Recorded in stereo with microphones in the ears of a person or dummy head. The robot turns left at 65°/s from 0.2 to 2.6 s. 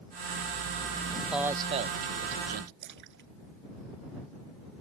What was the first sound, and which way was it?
A man speaking, 10° left.